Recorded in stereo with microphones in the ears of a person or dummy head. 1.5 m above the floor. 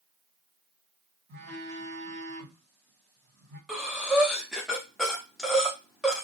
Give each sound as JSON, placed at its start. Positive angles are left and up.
{"t": 1.3, "sound": "a phone buzzing", "side_deg": -80, "distance_m": 1.7}
{"t": 3.7, "sound": "breathing", "side_deg": 0, "distance_m": 0.5}